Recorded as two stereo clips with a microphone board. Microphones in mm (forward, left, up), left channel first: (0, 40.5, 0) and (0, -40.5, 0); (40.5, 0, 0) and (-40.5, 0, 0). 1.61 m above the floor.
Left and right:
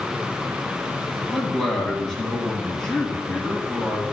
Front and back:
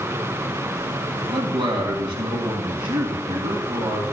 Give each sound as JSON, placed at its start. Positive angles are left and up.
{"t": 1.3, "sound": "a man speaking", "azimuth_deg": -170, "distance_m": 1.8}